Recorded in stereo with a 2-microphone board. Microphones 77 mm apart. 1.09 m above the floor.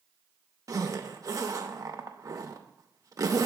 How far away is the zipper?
About 0.6 m.